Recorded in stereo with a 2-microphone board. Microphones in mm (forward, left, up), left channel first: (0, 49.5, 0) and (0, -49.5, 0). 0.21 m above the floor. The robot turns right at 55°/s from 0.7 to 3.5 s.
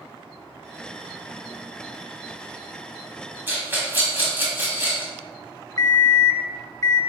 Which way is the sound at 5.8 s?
40° left (ahead or behind).